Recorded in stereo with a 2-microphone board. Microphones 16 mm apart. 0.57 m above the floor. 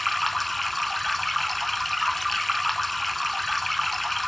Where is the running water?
5° left (ahead or behind), 0.8 m.